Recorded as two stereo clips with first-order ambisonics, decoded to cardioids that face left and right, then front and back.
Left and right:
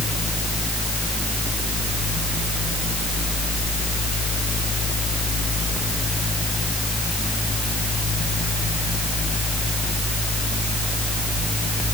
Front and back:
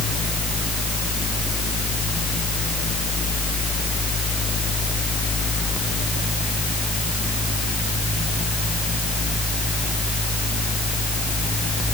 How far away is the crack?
I don't hear a crack.